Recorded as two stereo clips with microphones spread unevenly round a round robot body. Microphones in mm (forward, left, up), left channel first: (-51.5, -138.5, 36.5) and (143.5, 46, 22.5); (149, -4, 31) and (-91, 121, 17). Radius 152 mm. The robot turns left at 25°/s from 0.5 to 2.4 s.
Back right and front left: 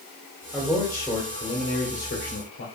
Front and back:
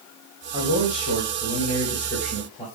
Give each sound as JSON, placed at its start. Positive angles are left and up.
{"t": 0.5, "sound": "a man speaking", "azimuth_deg": -45, "distance_m": 3.0}